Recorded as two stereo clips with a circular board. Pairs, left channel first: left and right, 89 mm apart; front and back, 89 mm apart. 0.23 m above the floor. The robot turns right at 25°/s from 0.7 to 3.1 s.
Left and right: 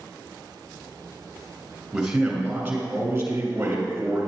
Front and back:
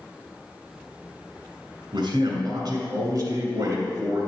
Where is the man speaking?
Straight behind, 2.5 m; by 4.3 s 150° right, 2.5 m.